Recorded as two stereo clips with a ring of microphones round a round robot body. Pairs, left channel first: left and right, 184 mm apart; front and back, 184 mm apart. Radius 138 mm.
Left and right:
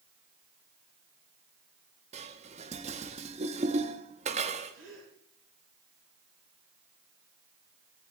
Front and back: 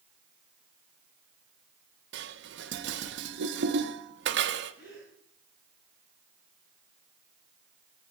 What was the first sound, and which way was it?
Dishes clattering, 150° right.